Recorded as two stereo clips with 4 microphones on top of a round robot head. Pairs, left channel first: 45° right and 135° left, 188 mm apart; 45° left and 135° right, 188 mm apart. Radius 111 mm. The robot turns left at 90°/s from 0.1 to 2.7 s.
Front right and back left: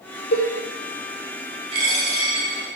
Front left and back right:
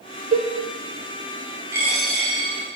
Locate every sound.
0.3 s a cowbell: 80° right, 0.9 m; by 0.5 s 95° right, 0.9 m
1.7 s a dropped coin: 165° left, 0.8 m; by 2.5 s 90° left, 0.8 m